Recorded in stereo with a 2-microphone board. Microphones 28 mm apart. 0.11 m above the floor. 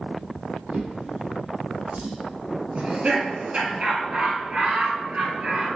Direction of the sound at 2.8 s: 45° right (ahead or behind).